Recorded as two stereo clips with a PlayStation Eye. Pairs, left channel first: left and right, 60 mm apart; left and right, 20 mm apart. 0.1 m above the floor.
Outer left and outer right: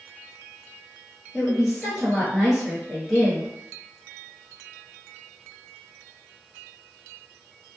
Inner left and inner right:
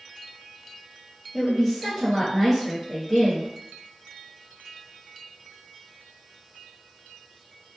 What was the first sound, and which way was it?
A woman speaking, 5° right (ahead or behind).